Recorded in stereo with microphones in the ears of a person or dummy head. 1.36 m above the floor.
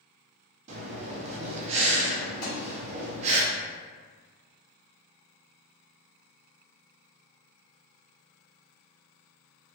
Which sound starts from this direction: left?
A thud, at 2.4 s.